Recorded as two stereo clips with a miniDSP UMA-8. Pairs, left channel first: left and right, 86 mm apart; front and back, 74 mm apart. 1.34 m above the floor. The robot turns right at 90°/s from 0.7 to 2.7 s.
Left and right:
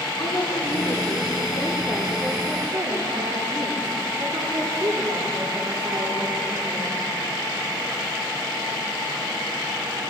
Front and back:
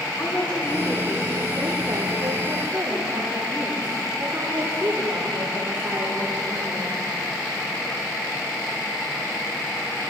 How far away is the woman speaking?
About 4.5 m.